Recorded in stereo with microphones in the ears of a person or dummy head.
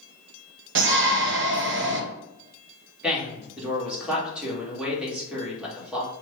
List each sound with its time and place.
0.8 s a shout: 55° right (ahead or behind), 0.8 m
3.0 s a man speaking: 5° right (ahead or behind), 1.5 m